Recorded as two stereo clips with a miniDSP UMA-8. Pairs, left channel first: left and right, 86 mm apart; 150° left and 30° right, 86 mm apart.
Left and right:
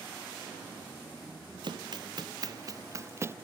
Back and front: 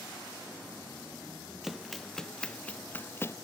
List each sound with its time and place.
1.6 s running footsteps: 120° right; by 3.4 s 150° right